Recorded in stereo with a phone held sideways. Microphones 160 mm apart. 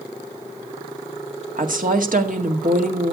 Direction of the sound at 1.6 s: 65° right (ahead or behind).